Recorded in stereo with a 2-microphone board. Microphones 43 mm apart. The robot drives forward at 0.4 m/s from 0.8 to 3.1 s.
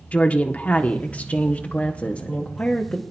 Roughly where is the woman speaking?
Left.